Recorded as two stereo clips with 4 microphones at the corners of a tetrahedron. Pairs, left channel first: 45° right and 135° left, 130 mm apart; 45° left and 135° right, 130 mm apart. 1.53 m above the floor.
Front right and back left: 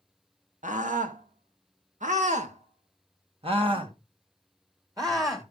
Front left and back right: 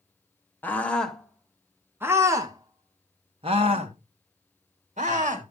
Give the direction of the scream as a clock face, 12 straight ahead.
8 o'clock.